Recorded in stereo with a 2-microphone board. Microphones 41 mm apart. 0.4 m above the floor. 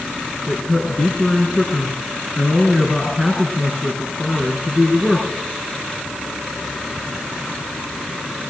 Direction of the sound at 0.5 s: 20° left (ahead or behind).